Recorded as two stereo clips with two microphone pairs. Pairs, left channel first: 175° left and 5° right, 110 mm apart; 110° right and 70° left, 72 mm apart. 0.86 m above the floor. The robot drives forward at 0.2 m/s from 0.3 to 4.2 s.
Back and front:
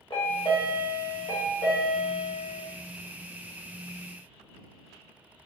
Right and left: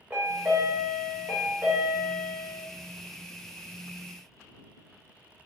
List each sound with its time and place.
0.1 s a chime: 135° left, 1.2 m; by 2.6 s 145° left, 1.6 m